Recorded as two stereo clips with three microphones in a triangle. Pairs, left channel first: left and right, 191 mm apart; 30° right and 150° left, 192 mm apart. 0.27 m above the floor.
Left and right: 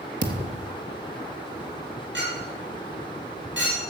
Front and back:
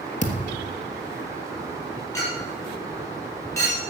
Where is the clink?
105° right, 5 m.